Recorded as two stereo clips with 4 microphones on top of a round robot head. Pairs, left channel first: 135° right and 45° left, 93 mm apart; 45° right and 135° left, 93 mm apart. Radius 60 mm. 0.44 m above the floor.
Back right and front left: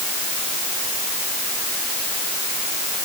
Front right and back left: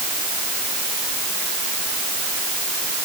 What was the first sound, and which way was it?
Only background noise.